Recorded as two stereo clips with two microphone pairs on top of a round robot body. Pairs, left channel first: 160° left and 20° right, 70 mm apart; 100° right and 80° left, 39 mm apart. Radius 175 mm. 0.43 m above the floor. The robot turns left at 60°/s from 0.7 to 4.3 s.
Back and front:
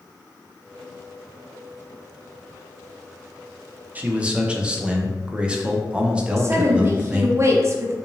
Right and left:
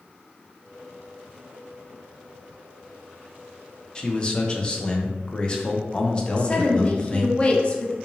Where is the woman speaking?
60° right, 0.9 m.